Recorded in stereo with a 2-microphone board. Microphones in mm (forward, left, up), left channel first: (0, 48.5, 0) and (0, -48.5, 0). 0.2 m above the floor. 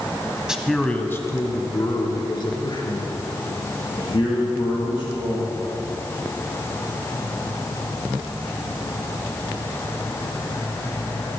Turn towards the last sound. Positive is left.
turn(degrees=60)  # may be behind; listen again after turning